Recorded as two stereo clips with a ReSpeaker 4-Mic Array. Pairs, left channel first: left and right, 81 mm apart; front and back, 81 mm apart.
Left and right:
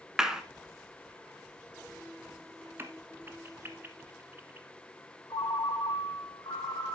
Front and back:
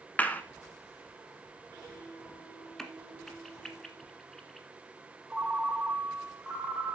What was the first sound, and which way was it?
A clap, 20° right.